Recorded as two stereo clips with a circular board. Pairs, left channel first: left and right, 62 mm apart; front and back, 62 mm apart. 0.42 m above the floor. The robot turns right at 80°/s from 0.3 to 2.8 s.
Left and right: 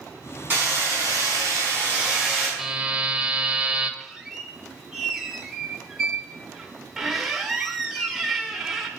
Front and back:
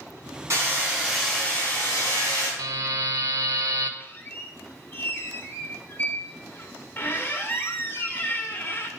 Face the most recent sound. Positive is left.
turn(degrees=-5)